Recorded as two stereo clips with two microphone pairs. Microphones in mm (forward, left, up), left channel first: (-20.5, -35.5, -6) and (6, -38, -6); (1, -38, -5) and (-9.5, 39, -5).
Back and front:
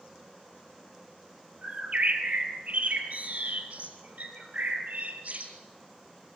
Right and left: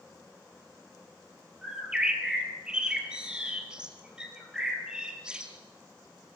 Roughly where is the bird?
Ahead.